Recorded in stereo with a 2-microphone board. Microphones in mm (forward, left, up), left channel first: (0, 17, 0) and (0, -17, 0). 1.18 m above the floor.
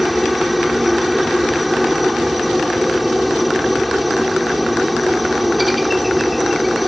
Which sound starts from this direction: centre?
A helicopter, at 0.0 s.